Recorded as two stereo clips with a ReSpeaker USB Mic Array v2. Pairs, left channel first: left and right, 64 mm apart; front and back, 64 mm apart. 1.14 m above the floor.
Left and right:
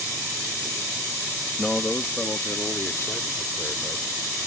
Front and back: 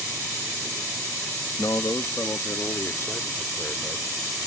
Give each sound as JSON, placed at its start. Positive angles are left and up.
{"t": 1.6, "sound": "a man speaking", "azimuth_deg": 15}